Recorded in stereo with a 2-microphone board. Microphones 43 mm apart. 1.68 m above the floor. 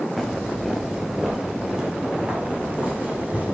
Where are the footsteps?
Centre (ahead or behind), 2 m; by 3.5 s 40° right (ahead or behind), 3 m.